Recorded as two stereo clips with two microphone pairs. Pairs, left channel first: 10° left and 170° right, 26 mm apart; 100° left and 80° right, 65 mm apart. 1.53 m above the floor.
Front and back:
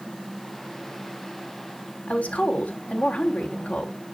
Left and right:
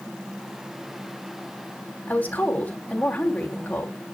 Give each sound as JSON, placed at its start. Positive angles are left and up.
{"t": 2.1, "sound": "a woman speaking", "azimuth_deg": 35, "distance_m": 4.0}